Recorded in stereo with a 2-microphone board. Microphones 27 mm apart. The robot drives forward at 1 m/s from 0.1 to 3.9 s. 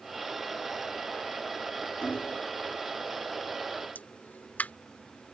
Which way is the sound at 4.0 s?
80° left.